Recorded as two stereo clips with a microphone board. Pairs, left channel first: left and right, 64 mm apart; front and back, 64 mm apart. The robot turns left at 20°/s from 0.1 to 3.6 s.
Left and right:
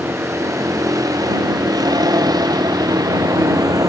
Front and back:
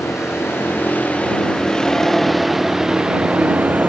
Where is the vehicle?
45° right; by 3.9 s 110° right.